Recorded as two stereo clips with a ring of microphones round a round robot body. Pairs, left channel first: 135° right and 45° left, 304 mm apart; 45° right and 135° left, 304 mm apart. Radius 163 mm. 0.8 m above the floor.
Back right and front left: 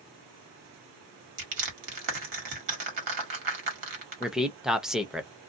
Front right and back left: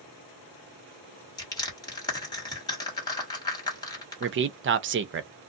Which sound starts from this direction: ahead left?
Crushing, at 1.4 s.